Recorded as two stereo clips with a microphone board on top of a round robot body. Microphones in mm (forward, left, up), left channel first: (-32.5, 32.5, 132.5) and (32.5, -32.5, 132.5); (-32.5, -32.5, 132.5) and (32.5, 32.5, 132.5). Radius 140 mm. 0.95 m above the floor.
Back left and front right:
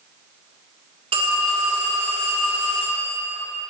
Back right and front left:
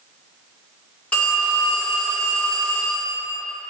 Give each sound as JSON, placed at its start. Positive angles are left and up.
{"t": 1.1, "sound": "a phone ringing", "azimuth_deg": -60, "distance_m": 2.0}